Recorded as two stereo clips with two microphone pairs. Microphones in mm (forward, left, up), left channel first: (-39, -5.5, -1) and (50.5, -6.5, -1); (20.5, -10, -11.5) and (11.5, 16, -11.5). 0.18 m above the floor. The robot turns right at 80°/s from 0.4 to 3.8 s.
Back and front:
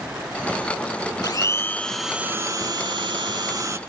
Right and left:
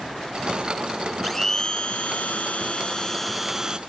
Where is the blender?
150° right, 0.6 m; by 3.8 s 55° left, 0.6 m.